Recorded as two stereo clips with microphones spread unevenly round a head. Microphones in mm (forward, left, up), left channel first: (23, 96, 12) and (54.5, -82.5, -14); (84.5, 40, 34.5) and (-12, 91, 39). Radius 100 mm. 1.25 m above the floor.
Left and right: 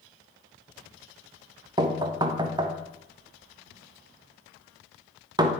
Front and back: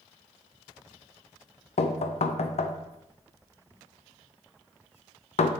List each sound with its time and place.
1.8 s knocking: 15° right, 0.6 m